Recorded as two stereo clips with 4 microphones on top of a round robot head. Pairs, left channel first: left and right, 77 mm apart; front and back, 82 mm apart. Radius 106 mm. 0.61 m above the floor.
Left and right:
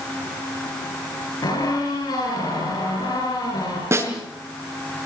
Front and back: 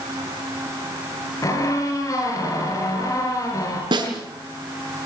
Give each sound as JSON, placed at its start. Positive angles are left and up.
{"t": 1.4, "sound": "a squeak", "azimuth_deg": 50, "distance_m": 9.5}
{"t": 3.9, "sound": "a snare drum", "azimuth_deg": -145, "distance_m": 6.0}